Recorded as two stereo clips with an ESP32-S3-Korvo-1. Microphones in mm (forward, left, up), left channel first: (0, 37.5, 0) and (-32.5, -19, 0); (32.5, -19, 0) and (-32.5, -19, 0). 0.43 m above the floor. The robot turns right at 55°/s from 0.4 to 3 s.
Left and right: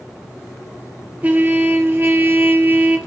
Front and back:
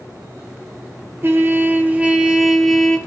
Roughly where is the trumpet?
Behind.